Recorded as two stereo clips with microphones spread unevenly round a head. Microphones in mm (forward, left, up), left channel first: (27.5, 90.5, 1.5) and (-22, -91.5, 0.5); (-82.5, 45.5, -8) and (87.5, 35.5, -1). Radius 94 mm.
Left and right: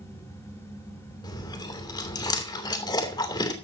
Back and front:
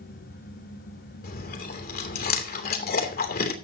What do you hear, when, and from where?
0.0 s a fan: 150° left, 6 m
1.2 s chewing: 145° left, 2.5 m